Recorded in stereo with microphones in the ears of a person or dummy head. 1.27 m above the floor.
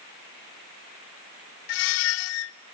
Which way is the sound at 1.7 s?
70° left (ahead or behind).